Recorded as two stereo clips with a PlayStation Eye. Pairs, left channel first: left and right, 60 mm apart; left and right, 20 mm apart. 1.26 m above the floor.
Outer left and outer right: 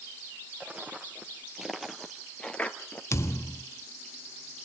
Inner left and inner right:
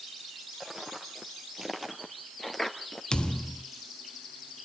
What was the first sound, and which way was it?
Footsteps, 25° right (ahead or behind).